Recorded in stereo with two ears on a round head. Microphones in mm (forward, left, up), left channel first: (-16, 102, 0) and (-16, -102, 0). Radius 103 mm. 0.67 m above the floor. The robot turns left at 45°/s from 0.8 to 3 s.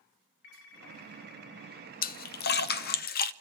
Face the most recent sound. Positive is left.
turn(degrees=40)  # may be behind; listen again after turning